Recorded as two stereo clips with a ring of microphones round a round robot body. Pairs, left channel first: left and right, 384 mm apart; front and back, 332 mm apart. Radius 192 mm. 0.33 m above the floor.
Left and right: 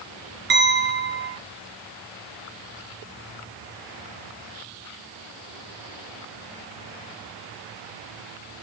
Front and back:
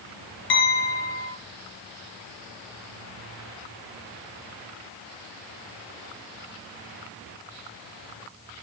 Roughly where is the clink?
Ahead right.